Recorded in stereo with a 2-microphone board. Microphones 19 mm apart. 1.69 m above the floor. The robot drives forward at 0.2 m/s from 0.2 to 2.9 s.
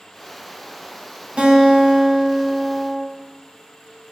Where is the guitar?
70° right (ahead or behind), 0.5 m; by 3.0 s 45° right (ahead or behind), 0.7 m.